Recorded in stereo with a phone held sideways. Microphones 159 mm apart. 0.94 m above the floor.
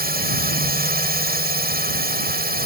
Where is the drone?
80° right.